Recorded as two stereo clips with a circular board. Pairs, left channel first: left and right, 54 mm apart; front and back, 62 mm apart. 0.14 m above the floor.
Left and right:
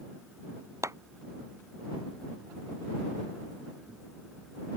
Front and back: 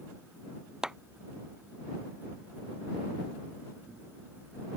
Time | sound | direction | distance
0.8 | a clap | 100° right | ?